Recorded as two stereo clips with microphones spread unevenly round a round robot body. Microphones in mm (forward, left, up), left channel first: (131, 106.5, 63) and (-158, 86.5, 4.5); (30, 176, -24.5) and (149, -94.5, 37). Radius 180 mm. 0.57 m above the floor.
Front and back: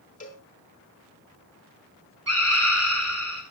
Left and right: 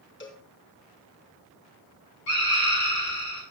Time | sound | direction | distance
0.2 | a cowbell | 70° left | 4 m
2.3 | a scream | 155° left | 8.5 m